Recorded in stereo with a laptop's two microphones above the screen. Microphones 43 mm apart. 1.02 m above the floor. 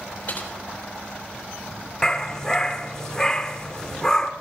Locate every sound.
0.3 s typing on a keyboard: 45° left (ahead or behind), 3 m
2.0 s a dog barking: 15° left (ahead or behind), 1.1 m